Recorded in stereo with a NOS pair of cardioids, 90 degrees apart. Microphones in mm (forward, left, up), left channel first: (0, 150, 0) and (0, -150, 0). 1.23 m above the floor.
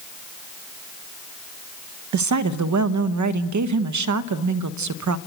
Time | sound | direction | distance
2.1 | a woman speaking | 70° right | 1.1 m